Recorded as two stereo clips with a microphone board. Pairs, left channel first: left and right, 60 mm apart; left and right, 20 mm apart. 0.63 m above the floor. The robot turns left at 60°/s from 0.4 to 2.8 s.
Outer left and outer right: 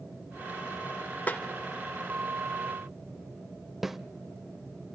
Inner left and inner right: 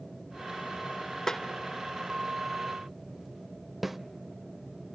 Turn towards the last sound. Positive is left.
turn(degrees=-5)  # may be behind; listen again after turning